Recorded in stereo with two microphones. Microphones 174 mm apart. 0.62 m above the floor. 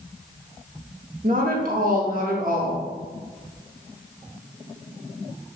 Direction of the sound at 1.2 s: 55° right (ahead or behind).